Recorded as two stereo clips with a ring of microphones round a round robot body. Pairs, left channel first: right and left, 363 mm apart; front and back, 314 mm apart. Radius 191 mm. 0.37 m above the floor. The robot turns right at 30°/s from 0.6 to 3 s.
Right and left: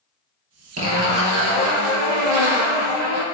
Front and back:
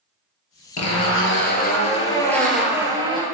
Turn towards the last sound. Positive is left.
turn(degrees=105)